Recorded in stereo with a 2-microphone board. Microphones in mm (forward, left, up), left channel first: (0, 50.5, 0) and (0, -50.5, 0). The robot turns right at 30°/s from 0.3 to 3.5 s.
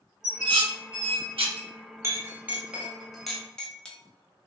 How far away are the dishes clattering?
About 0.8 m.